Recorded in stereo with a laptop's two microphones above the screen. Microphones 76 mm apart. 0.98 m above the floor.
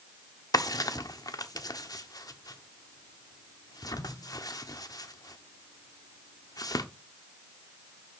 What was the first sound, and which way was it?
A drawer, 55° left (ahead or behind).